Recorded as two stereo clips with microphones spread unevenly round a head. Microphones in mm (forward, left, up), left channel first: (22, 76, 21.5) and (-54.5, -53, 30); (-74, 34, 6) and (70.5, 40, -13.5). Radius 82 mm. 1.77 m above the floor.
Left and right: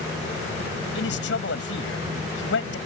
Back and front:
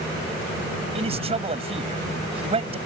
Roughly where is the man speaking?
Ahead left.